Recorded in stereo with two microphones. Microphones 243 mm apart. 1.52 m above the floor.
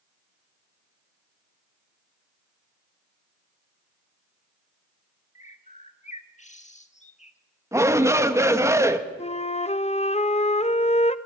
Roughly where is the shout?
Centre.